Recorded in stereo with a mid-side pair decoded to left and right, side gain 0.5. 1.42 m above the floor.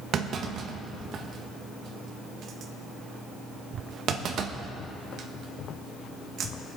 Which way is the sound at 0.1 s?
60° right.